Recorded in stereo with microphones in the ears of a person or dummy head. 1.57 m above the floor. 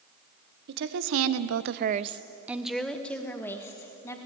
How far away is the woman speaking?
About 1.4 m.